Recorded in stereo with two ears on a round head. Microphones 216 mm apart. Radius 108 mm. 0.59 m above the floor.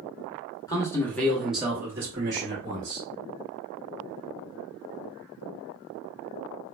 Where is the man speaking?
15° left (ahead or behind), 0.8 m; by 3.1 s 20° right (ahead or behind), 1.5 m.